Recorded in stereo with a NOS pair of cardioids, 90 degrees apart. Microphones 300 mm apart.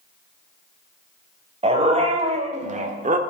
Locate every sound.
1.6 s a dog barking: 20° right, 3 m; by 3.2 s 25° right, 1.3 m